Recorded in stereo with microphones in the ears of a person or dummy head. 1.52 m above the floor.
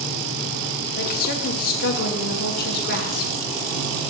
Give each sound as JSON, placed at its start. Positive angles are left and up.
{"t": 1.0, "sound": "a woman speaking", "side_deg": 50, "distance_m": 1.3}